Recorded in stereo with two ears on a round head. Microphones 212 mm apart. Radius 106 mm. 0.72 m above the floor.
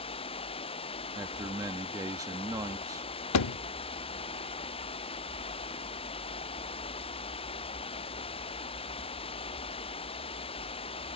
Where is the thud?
80° left.